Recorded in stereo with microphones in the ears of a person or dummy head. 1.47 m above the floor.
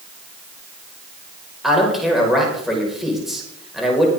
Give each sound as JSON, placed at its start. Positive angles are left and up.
{"t": 1.6, "sound": "a man speaking", "side_deg": 0, "distance_m": 5.0}